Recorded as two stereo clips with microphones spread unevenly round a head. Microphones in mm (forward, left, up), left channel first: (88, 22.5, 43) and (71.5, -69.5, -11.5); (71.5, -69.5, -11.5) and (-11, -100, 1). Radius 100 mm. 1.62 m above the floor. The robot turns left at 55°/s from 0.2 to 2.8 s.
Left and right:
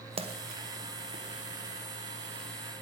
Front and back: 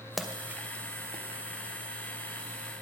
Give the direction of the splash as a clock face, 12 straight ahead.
2 o'clock.